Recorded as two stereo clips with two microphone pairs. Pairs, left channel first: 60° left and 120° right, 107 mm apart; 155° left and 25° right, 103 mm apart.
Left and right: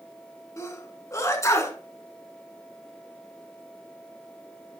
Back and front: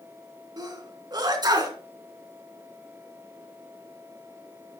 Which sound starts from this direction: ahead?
A sneeze, at 0.6 s.